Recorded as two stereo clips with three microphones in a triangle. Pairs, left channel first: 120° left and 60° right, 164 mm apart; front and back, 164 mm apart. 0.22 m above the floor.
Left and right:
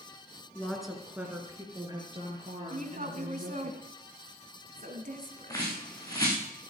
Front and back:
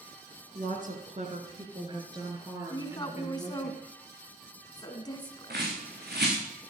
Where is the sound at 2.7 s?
60° right, 2 m.